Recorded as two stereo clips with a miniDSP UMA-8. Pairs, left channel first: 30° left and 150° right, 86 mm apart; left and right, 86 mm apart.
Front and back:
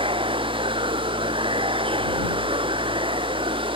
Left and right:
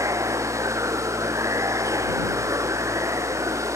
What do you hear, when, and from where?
0.0 s running water: 145° right